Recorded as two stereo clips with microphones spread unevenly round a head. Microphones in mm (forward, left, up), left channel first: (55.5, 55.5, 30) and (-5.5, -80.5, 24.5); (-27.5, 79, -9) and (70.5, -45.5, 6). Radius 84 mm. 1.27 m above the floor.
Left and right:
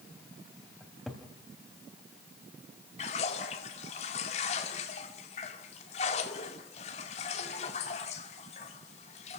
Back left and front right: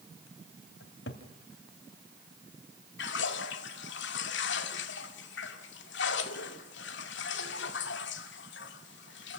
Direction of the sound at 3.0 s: 120° left.